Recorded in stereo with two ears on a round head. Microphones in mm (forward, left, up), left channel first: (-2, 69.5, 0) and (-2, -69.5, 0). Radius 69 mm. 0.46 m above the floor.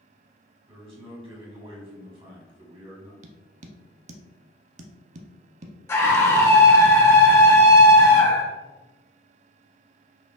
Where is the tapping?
45° right (ahead or behind), 0.5 m.